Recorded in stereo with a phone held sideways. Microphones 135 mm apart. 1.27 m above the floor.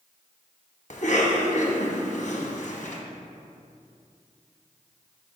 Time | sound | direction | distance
0.9 | a cough | 65° left (ahead or behind) | 1.1 m